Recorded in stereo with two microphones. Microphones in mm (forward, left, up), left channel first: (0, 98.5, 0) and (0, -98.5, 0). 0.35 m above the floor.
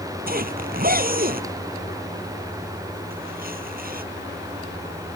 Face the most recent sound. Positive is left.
turn(degrees=-50)  # may be behind; listen again after turning